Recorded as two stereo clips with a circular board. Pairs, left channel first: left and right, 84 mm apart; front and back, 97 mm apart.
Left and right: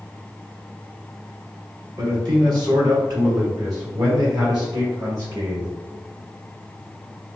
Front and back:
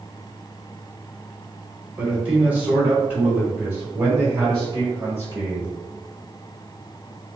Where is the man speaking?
105° right, 1.9 m; by 5.7 s 125° right, 3.5 m.